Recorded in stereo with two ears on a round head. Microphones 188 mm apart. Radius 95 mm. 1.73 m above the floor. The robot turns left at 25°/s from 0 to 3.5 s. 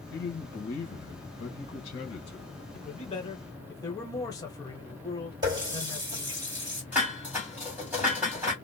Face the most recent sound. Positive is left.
turn(degrees=-10)  # may be behind; listen again after turning